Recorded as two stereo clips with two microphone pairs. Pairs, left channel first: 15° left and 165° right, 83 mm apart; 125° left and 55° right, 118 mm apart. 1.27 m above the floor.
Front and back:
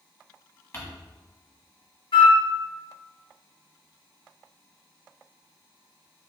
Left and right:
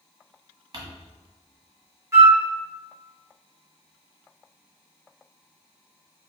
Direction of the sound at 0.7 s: 30° right.